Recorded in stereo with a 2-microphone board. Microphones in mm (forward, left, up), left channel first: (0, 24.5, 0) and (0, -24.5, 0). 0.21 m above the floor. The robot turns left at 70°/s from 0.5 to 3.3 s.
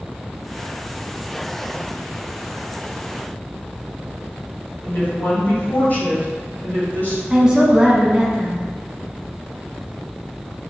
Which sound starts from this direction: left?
A woman speaking, at 4.8 s.